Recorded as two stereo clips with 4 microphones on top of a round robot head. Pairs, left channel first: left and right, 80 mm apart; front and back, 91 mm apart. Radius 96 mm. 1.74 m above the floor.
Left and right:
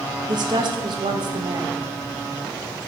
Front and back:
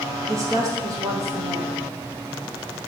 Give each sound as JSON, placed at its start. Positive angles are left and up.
{"t": 0.3, "sound": "a woman speaking", "azimuth_deg": -120, "distance_m": 1.0}